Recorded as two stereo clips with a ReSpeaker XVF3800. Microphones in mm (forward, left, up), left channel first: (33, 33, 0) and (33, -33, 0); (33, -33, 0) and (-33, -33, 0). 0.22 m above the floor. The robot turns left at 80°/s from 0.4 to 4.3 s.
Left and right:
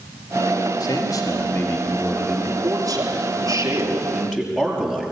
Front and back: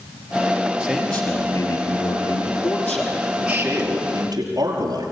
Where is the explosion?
No explosion in this recording.